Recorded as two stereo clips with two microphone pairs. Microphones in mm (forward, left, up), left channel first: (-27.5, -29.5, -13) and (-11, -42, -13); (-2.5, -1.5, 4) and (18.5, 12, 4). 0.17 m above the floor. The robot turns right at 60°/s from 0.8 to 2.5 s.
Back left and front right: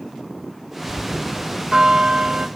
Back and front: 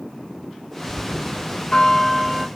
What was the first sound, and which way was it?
A bell, 135° right.